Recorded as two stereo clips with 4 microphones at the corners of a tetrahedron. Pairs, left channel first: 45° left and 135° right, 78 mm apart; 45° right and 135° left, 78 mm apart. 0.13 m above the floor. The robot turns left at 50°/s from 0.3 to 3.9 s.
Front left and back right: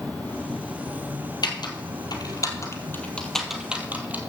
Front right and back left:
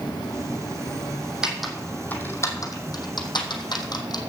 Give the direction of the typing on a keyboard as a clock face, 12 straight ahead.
10 o'clock.